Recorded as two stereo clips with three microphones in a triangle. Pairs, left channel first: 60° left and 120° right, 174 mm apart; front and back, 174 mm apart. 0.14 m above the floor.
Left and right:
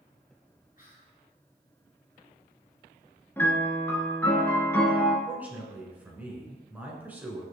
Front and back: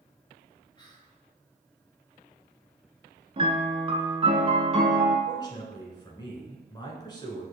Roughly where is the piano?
Behind left.